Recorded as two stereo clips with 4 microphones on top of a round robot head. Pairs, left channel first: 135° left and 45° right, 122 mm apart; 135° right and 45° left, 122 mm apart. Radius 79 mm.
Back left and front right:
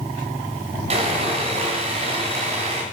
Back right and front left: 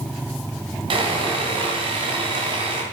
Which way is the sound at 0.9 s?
5° right.